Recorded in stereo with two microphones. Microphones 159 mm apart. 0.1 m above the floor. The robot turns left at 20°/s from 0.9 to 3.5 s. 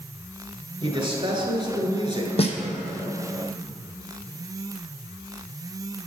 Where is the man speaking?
85° right, 1.3 m; by 2.9 s 125° right, 1.3 m.